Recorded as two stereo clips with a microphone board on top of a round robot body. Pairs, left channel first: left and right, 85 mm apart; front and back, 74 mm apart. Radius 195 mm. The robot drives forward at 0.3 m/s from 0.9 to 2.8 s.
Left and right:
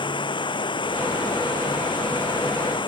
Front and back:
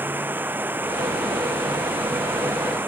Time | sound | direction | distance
0.0 | running water | 115° left | ?